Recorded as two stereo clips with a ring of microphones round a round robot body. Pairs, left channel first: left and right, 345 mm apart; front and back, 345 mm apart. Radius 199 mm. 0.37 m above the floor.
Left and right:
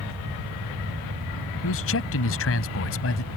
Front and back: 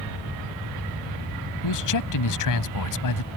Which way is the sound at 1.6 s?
35° left.